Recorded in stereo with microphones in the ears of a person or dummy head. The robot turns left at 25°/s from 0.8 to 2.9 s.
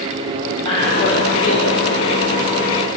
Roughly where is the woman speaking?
Left.